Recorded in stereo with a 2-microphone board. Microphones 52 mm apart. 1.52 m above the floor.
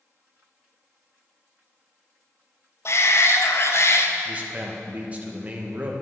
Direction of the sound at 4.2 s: 25° right (ahead or behind).